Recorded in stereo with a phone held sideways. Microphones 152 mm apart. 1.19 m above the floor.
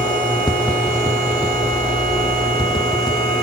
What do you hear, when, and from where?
0.5 s tapping: 30° left (ahead or behind), 0.8 m